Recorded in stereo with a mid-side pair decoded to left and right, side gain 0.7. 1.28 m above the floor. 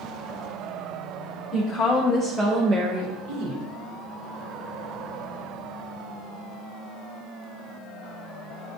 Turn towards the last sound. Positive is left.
turn(degrees=-70)